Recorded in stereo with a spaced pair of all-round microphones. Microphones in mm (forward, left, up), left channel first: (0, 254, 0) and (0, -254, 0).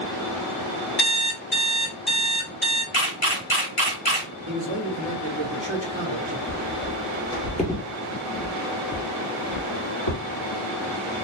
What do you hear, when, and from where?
1.0 s an alarm clock: 50° left (ahead or behind), 2 m
2.9 s a camera shutter: 75° left (ahead or behind), 1.5 m
4.5 s a man speaking: 60° right (ahead or behind), 1.0 m
6.5 s footsteps: 10° right (ahead or behind), 1.6 m; by 10.2 s 50° left (ahead or behind), 2.5 m